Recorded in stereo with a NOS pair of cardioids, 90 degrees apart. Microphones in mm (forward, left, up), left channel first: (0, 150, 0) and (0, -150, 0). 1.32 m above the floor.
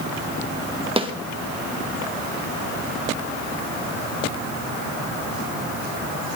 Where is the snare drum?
20° right, 1.6 m.